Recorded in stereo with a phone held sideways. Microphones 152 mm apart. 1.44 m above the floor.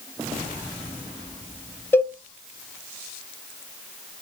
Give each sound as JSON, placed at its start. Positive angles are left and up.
{"t": 1.9, "sound": "a cowbell", "side_deg": 15, "distance_m": 0.5}